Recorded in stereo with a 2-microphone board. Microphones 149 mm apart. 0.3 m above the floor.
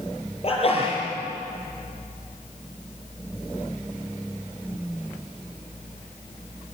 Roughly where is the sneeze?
Left.